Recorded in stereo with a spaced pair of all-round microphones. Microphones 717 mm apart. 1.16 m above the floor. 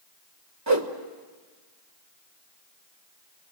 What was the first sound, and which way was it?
A whoosh, 25° right (ahead or behind).